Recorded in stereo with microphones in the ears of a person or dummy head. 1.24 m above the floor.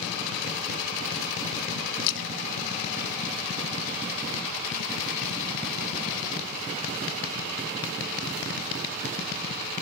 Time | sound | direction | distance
2.0 | a splash | 75° left (ahead or behind) | 1.1 m